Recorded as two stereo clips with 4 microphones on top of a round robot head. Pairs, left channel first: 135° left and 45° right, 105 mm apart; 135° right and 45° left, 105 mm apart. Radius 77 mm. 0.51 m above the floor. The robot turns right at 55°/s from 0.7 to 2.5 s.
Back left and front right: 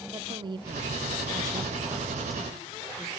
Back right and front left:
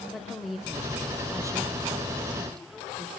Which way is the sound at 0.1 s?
45° right.